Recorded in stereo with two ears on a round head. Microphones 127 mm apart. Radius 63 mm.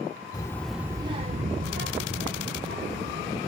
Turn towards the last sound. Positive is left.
turn(degrees=-75)  # may be behind; listen again after turning